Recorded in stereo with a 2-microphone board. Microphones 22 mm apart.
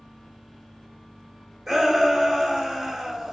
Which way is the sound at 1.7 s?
15° right (ahead or behind).